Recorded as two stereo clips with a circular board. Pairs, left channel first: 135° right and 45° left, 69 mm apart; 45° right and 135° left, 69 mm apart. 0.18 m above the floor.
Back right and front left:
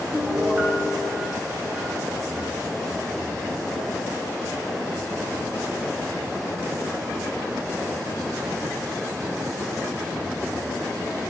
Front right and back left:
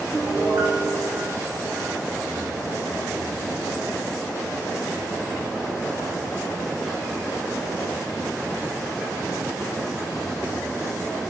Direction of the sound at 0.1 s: 105° left.